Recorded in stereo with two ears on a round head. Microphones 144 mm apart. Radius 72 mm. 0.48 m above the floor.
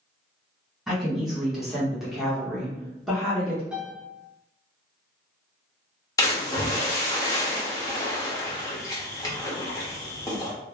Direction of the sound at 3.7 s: 5° right (ahead or behind).